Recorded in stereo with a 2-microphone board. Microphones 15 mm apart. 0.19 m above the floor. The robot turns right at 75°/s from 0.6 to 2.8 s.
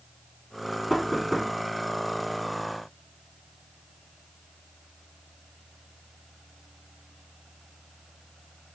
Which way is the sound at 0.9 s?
5° left (ahead or behind).